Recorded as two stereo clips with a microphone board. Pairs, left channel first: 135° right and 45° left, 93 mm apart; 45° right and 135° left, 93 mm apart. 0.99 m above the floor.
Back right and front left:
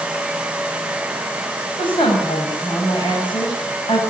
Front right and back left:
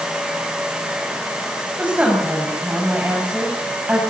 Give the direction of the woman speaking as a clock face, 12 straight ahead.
5 o'clock.